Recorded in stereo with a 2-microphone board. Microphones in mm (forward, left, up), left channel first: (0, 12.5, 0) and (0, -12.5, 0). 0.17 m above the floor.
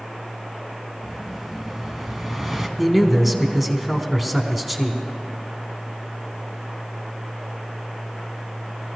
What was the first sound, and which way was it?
An explosion, 5° right (ahead or behind).